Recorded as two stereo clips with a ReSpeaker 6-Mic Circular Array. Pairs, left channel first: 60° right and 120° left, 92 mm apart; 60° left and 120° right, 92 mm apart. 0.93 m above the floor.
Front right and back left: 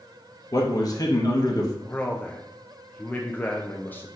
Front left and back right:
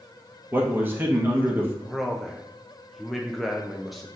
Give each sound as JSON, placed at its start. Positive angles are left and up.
{"t": 0.5, "sound": "a man speaking", "azimuth_deg": -65, "distance_m": 1.1}
{"t": 1.9, "sound": "a man speaking", "azimuth_deg": -30, "distance_m": 0.5}